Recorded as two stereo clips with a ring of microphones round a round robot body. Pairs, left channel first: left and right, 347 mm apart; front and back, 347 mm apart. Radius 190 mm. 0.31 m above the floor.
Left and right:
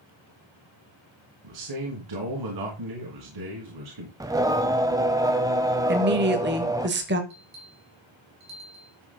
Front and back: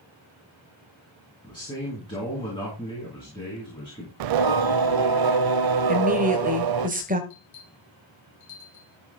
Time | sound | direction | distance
1.4 | a man speaking | 80° right | 3.5 m
4.2 | singing | 170° right | 0.6 m
5.9 | a woman speaking | 125° right | 1.3 m
7.3 | a bell | 45° right | 3 m